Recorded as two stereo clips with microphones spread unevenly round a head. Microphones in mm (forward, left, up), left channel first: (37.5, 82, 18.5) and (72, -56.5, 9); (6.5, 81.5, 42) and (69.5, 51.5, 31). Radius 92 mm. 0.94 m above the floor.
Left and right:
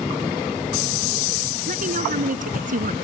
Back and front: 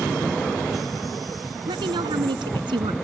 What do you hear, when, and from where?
1.7 s a woman speaking: 50° right